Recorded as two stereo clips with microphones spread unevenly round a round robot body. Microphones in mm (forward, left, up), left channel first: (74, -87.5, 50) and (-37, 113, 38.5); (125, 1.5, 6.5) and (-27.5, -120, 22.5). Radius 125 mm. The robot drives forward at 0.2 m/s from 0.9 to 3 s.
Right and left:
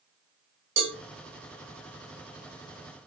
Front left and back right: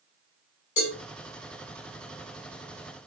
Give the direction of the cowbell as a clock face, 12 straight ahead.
9 o'clock.